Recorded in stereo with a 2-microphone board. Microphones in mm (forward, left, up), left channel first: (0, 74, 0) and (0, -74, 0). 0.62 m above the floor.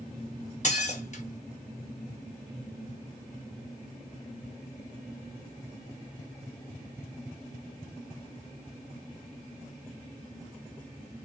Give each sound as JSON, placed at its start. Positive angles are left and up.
{"t": 0.6, "sound": "dishes clattering", "side_deg": 50, "distance_m": 0.9}